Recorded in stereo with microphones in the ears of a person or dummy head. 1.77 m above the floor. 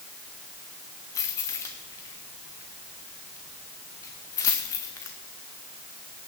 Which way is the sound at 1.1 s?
20° left (ahead or behind).